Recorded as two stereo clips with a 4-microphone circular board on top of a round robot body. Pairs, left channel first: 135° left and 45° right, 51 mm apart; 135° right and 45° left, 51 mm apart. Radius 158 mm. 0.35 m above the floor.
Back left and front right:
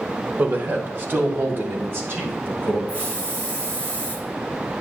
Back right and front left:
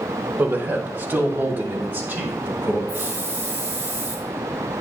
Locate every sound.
0.4 s a man speaking: straight ahead, 1.6 m; by 2.8 s 5° right, 5 m
2.9 s a hiss: straight ahead, 4 m